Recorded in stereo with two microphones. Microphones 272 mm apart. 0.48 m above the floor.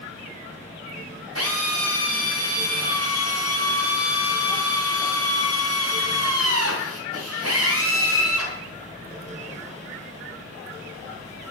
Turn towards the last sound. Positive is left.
turn(degrees=-65)  # may be behind; listen again after turning